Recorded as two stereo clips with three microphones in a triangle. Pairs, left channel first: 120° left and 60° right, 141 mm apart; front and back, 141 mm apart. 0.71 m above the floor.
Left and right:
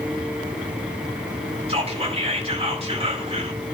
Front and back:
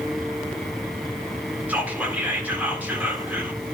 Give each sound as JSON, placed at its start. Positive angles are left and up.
{"t": 1.7, "sound": "whispering", "azimuth_deg": -100, "distance_m": 1.9}